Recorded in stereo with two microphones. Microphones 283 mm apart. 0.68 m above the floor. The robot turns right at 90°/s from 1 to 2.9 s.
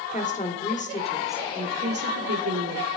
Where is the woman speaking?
155° left, 1.6 m; by 2.9 s 40° right, 1.6 m.